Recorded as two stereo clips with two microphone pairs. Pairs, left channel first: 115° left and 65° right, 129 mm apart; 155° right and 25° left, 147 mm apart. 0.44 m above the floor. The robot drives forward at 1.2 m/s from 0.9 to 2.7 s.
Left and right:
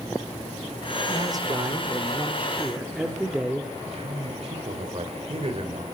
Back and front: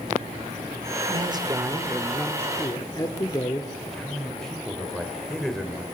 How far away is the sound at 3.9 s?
About 2 m.